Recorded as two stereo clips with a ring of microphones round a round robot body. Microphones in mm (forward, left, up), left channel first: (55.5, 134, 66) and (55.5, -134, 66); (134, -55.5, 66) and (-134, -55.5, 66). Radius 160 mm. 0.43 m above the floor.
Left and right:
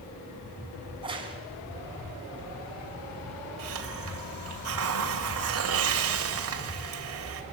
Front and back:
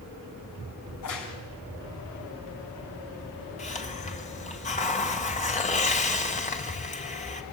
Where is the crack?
20° right, 5 m.